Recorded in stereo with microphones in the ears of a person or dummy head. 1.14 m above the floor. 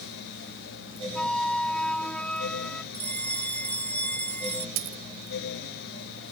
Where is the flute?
5° left (ahead or behind).